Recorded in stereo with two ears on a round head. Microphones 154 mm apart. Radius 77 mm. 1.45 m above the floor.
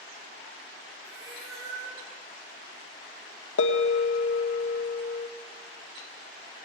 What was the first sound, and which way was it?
A cat meowing, 75° right (ahead or behind).